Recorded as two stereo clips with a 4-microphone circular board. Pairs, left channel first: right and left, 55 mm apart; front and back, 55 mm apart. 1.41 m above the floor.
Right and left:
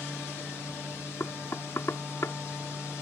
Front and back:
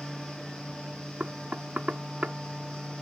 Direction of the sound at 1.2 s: 115° right.